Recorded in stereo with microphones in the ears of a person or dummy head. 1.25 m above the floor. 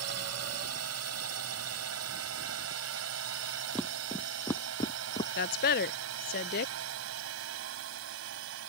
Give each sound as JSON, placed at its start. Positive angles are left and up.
{"t": 0.0, "sound": "a drone", "side_deg": -75}
{"t": 3.8, "sound": "footsteps", "side_deg": 0}
{"t": 5.4, "sound": "a woman speaking", "side_deg": 45}